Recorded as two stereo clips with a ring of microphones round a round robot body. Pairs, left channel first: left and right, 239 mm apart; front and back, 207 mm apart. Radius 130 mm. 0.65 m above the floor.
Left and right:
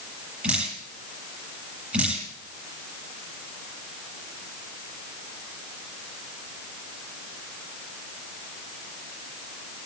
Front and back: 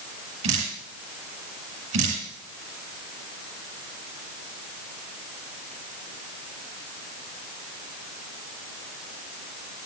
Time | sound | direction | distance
0.4 | dripping | 175° right | 8 m